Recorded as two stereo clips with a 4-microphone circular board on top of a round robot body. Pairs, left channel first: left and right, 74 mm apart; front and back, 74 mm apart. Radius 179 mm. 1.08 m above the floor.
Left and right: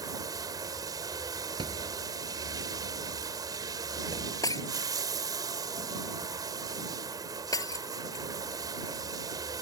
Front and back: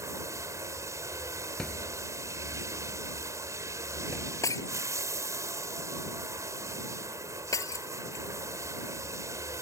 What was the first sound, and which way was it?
Running water, 130° right.